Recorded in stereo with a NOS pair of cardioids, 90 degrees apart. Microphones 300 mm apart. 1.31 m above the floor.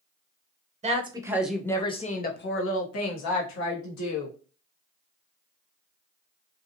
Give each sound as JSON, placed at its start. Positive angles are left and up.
{"t": 0.8, "sound": "a woman speaking", "azimuth_deg": -20, "distance_m": 1.0}